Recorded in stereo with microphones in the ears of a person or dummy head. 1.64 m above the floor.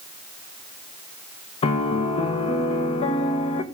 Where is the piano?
30° left (ahead or behind), 1.4 m.